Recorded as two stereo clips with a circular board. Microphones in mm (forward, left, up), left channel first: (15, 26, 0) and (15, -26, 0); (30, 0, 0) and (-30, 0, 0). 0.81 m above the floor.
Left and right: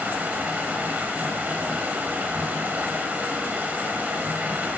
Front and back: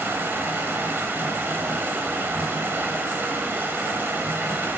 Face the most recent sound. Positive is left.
turn(degrees=-135)